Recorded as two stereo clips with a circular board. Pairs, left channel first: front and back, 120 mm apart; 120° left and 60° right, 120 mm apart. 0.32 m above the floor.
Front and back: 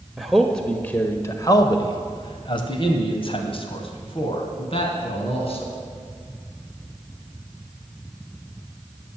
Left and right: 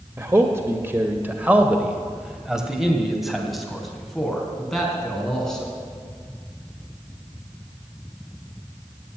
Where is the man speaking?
95° right, 1.2 m; by 5.7 s 35° left, 3.5 m.